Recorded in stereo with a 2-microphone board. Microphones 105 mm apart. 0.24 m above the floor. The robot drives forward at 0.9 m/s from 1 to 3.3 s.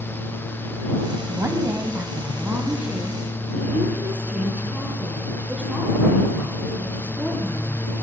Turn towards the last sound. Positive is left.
turn(degrees=-15)  # may be behind; listen again after turning